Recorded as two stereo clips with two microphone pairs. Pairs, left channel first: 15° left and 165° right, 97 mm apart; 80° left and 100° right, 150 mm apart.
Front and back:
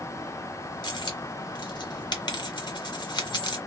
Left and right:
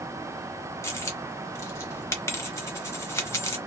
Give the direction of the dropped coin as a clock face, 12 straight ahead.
11 o'clock.